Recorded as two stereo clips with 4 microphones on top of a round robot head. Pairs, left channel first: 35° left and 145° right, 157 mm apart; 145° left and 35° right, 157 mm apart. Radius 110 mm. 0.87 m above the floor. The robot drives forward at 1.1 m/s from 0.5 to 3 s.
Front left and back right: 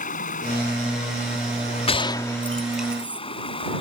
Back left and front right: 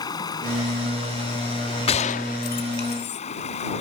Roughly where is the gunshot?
Left.